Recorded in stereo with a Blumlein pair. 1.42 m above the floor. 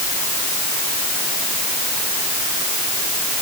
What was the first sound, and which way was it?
Only background noise.